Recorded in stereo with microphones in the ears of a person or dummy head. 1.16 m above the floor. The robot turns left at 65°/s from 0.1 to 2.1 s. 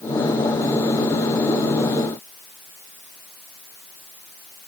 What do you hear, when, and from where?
Only background noise.